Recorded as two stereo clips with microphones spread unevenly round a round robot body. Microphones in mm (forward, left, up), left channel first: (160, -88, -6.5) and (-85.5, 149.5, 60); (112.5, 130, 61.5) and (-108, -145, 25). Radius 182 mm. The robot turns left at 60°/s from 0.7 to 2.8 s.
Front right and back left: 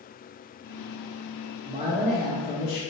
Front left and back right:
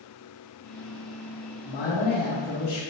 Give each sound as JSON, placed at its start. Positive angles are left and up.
{"t": 1.6, "sound": "a man speaking", "azimuth_deg": 75, "distance_m": 2.0}